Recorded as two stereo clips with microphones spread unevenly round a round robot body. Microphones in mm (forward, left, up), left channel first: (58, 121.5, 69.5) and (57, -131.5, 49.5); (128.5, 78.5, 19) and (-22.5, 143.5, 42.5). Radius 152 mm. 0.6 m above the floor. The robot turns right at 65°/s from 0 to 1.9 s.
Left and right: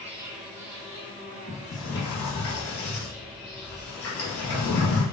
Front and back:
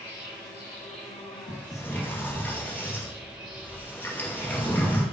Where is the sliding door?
30° left, 3 m; by 5.0 s 60° left, 3 m.